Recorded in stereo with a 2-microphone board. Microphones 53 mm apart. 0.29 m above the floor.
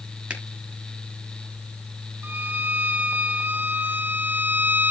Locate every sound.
0.3 s a finger snap: 20° right (ahead or behind), 4.5 m
2.2 s a violin: 35° right (ahead or behind), 1.0 m